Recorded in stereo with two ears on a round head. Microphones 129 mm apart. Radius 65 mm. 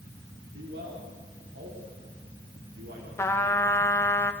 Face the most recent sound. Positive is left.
turn(degrees=15)  # may be behind; listen again after turning